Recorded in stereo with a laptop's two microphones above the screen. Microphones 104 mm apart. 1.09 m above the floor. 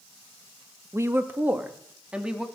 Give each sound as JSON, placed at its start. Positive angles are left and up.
{"t": 0.9, "sound": "a woman speaking", "side_deg": -25, "distance_m": 1.1}